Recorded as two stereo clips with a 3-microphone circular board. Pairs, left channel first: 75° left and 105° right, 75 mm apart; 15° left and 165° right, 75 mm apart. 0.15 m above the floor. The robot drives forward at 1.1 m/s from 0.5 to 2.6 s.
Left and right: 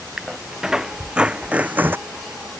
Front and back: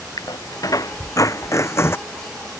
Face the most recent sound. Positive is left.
turn(degrees=-65)